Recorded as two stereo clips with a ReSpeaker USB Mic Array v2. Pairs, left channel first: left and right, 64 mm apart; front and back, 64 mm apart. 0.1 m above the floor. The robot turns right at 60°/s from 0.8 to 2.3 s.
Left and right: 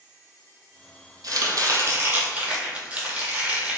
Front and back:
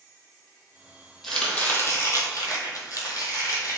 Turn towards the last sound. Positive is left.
turn(degrees=-25)